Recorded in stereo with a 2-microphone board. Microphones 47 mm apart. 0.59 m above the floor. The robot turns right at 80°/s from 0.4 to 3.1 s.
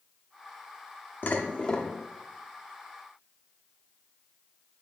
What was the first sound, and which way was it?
Dishes clattering, 120° left.